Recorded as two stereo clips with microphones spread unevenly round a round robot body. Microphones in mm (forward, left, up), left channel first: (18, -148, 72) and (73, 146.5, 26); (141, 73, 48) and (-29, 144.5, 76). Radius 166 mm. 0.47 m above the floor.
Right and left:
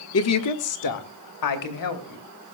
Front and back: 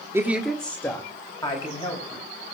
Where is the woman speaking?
120° right, 1.1 m; by 2.2 s 85° right, 3 m.